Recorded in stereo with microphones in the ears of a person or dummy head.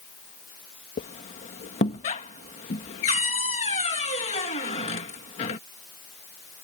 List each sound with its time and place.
1.0 s a squeak: 35° left (ahead or behind)